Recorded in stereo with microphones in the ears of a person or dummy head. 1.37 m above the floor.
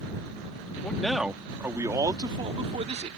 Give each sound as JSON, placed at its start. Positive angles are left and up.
{"t": 0.8, "sound": "a man speaking", "side_deg": 10}